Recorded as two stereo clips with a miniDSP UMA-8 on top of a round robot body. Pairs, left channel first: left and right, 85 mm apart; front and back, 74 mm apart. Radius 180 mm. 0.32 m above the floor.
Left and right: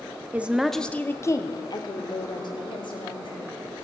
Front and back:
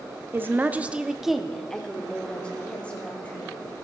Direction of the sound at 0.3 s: 150° right.